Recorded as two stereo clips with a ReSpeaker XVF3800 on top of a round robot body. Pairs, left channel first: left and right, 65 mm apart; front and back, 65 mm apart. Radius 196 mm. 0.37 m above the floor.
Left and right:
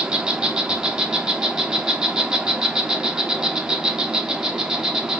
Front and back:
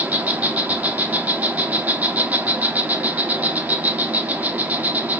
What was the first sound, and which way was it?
An insect, 155° right.